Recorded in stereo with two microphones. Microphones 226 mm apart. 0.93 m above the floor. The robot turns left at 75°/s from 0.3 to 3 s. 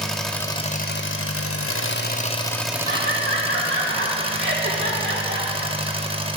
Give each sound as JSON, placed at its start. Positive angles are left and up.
{"t": 0.0, "sound": "an engine running", "azimuth_deg": 180, "distance_m": 0.7}
{"t": 2.9, "sound": "laughter", "side_deg": -70, "distance_m": 2.5}